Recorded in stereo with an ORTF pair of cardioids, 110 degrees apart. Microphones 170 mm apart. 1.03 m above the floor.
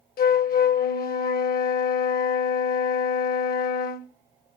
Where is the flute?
60° left, 1.2 m.